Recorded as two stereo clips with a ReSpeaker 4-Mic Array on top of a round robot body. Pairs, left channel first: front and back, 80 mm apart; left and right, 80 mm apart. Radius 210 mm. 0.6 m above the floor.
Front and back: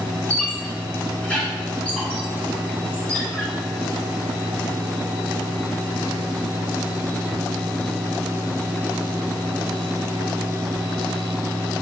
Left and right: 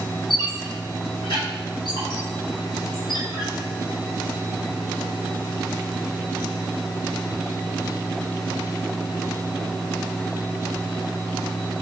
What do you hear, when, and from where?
0.3 s a squeak: 75° left, 1.8 m